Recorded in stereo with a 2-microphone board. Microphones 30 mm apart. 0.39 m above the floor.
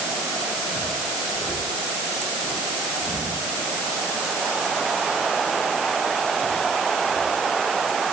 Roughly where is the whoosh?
I don't hear a whoosh.